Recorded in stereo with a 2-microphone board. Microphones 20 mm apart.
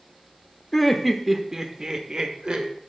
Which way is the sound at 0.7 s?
10° left (ahead or behind).